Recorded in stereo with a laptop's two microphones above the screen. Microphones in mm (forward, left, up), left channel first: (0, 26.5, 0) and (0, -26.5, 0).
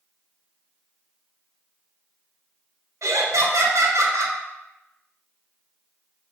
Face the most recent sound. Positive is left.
turn(degrees=-75)  # may be behind; listen again after turning